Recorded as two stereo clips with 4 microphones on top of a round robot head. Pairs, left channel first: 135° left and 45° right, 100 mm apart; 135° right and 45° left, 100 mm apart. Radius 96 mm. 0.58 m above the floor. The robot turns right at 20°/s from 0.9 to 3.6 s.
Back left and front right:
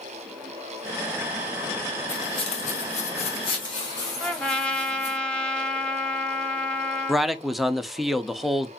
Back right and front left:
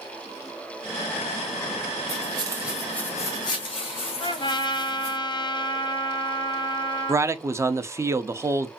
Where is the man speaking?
45° left, 0.7 m.